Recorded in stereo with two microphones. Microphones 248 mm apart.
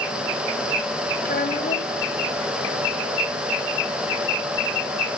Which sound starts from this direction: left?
A child speaking, at 1.2 s.